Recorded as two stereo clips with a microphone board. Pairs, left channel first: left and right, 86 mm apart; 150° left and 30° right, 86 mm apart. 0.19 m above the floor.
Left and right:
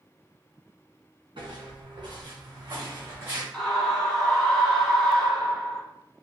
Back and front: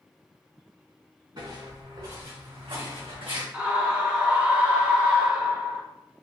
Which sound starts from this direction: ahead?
A scream, at 3.5 s.